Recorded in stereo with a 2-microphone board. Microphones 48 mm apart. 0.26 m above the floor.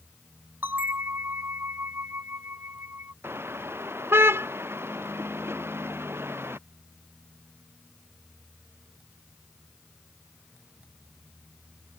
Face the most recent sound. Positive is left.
turn(degrees=-55)  # may be behind; listen again after turning